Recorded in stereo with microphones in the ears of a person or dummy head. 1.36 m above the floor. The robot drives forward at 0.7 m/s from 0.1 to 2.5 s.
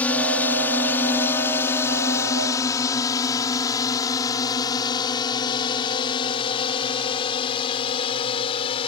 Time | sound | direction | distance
0.0 | a drone | 5° left (ahead or behind) | ?